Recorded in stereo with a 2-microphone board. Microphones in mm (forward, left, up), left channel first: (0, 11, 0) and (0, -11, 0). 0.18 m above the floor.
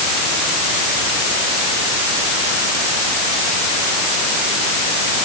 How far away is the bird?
No bird in this recording.